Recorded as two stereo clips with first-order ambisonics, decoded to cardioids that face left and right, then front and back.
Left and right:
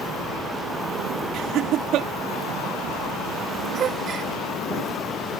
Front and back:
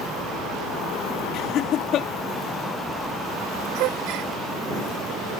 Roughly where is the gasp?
Behind right.